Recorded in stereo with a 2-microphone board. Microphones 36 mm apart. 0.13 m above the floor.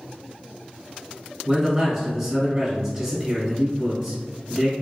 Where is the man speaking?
5° right (ahead or behind), 1.3 m.